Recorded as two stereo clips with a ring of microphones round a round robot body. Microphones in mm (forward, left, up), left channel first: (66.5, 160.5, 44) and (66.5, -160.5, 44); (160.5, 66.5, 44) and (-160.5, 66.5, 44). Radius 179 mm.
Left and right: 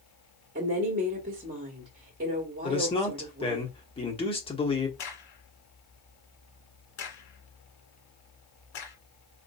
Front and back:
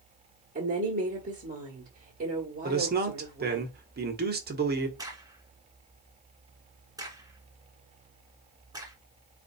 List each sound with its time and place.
0.6 s a woman speaking: 135° right, 1.4 m
2.6 s a man speaking: 150° left, 1.2 m
5.0 s a crack: 100° left, 1.8 m